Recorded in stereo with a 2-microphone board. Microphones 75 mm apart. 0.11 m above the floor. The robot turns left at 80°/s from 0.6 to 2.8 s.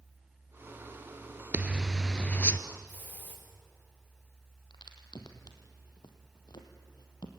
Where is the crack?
70° left (ahead or behind), 2.5 m.